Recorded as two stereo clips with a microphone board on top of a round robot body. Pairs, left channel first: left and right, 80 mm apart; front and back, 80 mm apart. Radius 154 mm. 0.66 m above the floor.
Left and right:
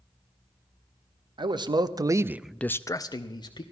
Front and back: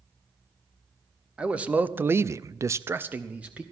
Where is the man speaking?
105° right, 1.2 m; by 3.6 s 105° left, 1.3 m.